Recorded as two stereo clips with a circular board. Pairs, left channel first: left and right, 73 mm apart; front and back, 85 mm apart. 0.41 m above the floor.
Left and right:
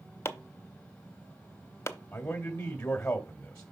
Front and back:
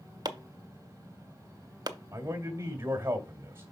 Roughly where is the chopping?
Behind left.